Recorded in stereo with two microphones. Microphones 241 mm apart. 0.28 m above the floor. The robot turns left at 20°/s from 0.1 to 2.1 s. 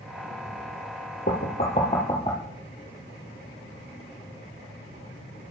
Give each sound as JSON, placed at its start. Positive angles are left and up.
{"t": 1.3, "sound": "knocking", "side_deg": 35, "distance_m": 5.5}